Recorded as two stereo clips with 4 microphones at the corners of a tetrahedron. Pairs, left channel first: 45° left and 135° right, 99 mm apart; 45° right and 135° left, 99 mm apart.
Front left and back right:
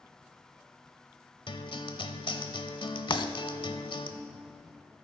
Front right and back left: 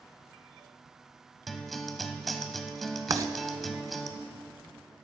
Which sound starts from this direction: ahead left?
A guitar, at 1.5 s.